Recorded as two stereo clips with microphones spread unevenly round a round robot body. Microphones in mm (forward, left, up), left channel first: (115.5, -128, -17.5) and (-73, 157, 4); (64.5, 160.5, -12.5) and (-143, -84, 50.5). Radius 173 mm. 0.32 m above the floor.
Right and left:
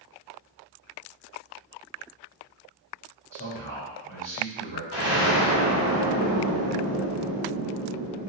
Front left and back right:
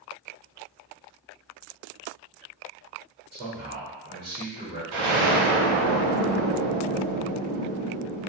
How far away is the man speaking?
About 1.4 m.